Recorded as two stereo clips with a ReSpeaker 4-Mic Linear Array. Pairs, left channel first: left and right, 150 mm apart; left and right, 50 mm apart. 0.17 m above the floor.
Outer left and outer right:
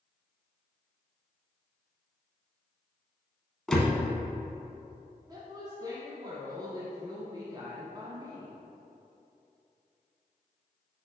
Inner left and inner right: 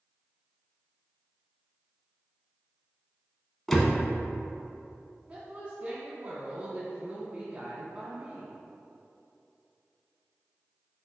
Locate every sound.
3.7 s a door slam: 5° left (ahead or behind), 0.8 m
5.3 s a woman speaking: 30° right (ahead or behind), 1.1 m